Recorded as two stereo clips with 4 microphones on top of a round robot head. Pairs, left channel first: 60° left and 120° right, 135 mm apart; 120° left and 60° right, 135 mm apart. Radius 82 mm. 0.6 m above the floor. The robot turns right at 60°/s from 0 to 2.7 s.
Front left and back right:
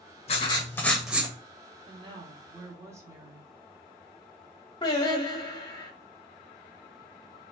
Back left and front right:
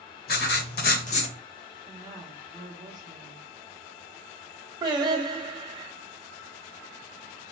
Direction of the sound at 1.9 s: 120° right.